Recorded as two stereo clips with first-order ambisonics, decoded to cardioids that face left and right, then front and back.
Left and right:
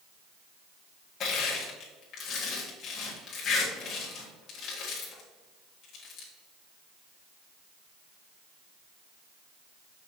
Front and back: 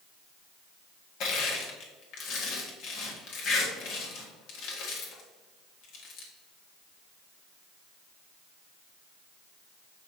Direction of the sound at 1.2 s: 35° left.